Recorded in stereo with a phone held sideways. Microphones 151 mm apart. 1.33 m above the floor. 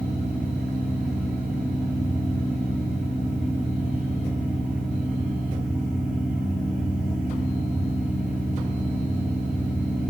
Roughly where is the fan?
Centre.